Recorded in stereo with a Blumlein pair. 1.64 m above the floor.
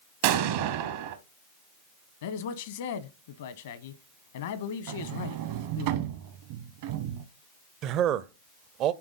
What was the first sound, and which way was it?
An explosion, 50° right.